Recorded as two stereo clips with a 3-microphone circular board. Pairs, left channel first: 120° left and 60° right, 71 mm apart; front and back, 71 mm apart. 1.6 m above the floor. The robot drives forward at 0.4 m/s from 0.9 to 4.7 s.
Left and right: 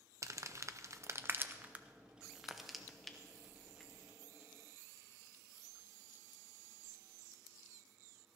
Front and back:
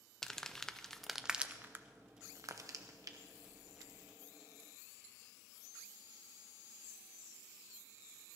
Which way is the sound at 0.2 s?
80° right.